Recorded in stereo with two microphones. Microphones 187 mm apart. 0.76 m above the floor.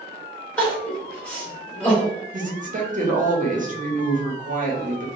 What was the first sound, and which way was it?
Crying, 5° left (ahead or behind).